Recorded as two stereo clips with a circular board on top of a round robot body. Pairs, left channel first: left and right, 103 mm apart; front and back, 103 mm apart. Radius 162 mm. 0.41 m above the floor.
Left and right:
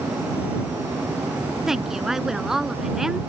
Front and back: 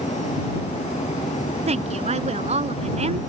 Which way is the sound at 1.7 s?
175° right.